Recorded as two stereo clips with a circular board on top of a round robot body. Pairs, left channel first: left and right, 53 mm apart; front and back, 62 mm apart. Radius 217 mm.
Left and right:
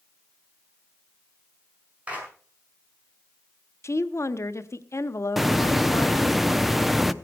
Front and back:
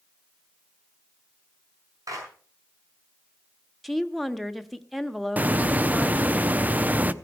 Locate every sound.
2.1 s a clap: 155° right, 6.5 m
3.8 s a woman speaking: 90° left, 1.4 m
5.4 s a hiss: 170° right, 1.1 m